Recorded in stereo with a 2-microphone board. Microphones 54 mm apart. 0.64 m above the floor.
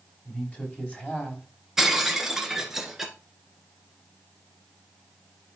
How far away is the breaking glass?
About 1.4 m.